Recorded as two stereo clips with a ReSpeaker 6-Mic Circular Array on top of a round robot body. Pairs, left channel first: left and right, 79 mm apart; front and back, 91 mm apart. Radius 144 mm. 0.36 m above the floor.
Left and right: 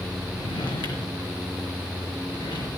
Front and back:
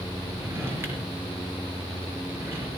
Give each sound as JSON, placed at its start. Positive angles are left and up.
{"t": 0.3, "sound": "a drawer", "azimuth_deg": 115, "distance_m": 4.0}